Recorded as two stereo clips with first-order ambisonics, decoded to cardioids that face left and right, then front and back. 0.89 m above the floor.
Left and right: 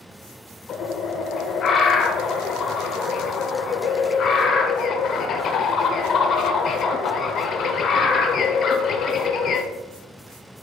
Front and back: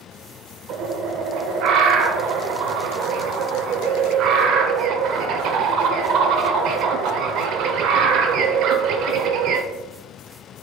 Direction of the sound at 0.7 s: 140° left.